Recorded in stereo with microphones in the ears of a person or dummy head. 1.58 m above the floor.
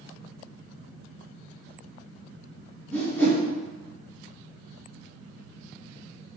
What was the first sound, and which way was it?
A whoosh, 10° left (ahead or behind).